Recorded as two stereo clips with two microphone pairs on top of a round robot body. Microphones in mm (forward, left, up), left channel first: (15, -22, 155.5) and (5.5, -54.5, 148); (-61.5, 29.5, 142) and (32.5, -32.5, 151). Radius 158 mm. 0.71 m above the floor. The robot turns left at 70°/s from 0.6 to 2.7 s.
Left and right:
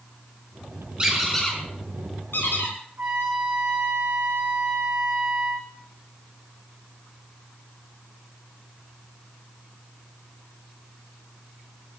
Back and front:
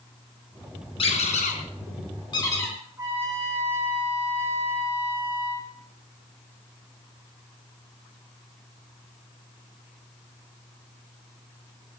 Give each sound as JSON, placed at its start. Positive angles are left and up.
{"t": 1.0, "sound": "a squeak", "azimuth_deg": -170, "distance_m": 3.5}
{"t": 3.0, "sound": "a trumpet", "azimuth_deg": -100, "distance_m": 4.5}